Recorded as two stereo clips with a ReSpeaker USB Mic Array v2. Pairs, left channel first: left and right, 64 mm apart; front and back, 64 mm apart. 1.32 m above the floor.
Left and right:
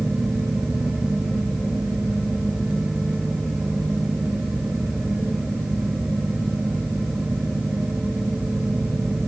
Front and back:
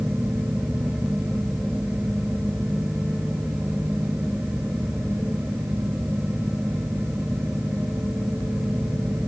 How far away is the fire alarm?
I don't hear a fire alarm.